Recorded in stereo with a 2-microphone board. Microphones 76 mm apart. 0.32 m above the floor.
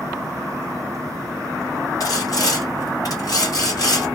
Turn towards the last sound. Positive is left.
turn(degrees=50)  # may be behind; listen again after turning